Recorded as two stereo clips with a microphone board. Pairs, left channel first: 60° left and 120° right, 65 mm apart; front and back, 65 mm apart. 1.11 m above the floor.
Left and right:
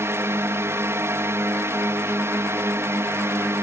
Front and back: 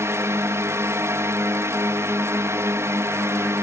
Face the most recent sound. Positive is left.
turn(degrees=-155)